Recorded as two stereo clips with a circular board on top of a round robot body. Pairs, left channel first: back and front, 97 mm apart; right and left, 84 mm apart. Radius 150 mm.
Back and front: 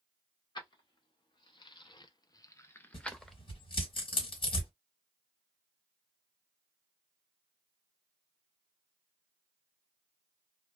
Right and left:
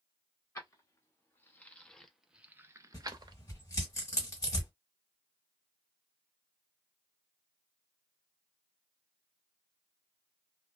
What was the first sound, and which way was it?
Keys jangling, 140° right.